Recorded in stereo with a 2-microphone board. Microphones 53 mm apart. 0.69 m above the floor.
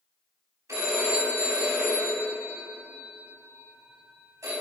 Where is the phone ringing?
85° right, 3.5 m.